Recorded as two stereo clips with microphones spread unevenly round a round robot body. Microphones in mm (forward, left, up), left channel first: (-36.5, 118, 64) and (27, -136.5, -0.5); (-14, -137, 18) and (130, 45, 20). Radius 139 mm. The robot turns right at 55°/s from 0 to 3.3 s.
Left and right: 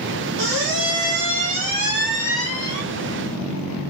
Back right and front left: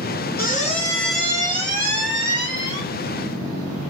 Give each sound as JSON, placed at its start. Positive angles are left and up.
{"t": 0.4, "sound": "a squeak", "azimuth_deg": -80, "distance_m": 2.0}